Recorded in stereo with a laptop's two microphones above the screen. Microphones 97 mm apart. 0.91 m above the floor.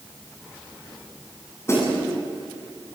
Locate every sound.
1.7 s a snare drum: 30° left (ahead or behind), 9 m